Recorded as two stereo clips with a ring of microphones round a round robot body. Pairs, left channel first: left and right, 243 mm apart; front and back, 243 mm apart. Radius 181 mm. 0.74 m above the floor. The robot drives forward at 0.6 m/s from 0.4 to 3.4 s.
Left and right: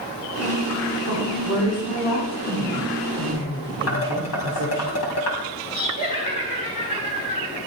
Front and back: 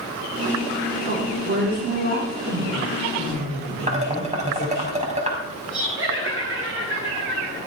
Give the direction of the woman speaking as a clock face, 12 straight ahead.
8 o'clock.